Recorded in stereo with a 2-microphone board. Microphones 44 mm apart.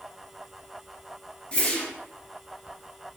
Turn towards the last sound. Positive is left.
turn(degrees=30)  # may be behind; listen again after turning